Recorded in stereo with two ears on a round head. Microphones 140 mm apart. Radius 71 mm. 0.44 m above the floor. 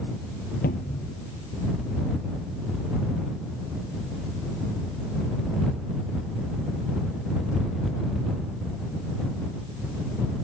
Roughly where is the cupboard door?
Left.